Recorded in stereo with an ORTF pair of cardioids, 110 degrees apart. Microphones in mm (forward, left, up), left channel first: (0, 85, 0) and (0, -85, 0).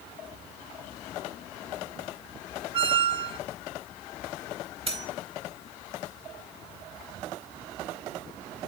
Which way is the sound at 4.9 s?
35° right.